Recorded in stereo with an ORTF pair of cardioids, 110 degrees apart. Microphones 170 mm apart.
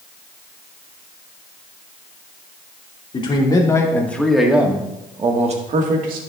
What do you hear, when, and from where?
3.1 s a man speaking: 30° left, 2.5 m; by 6.2 s 60° right, 2 m